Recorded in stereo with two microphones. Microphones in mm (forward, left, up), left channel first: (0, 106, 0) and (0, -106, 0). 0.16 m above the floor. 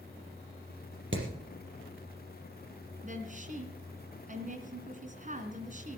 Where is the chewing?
I don't hear chewing.